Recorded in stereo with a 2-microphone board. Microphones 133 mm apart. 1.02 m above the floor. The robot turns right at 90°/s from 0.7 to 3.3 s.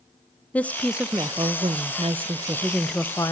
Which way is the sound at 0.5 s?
165° left.